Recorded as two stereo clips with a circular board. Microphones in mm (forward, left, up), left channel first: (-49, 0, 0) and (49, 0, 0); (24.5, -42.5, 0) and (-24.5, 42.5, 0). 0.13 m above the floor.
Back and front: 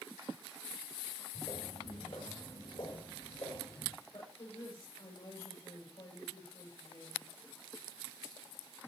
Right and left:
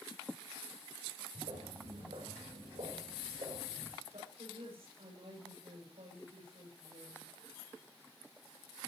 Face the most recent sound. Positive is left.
turn(degrees=140)